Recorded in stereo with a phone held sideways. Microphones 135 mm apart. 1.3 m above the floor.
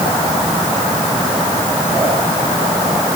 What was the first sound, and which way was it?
Only background noise.